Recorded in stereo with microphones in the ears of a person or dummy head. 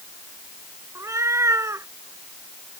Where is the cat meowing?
20° right (ahead or behind).